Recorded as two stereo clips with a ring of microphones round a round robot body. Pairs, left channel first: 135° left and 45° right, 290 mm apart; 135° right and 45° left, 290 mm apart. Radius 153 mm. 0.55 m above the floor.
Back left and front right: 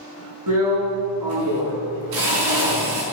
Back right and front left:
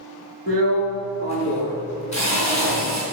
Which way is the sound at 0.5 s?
65° right.